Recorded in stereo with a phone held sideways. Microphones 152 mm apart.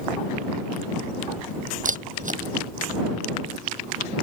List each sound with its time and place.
1.9 s a camera shutter: 60° right (ahead or behind)